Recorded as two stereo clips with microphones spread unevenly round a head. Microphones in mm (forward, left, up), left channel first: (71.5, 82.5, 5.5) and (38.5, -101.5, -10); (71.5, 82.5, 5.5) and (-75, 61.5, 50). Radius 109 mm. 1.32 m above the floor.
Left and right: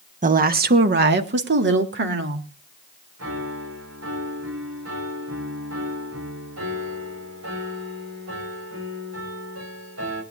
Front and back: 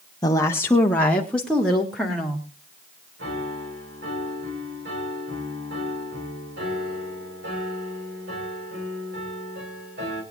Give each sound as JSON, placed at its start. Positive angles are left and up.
{"t": 0.2, "sound": "a woman speaking", "azimuth_deg": -55, "distance_m": 1.0}
{"t": 3.2, "sound": "a piano", "azimuth_deg": -130, "distance_m": 5.0}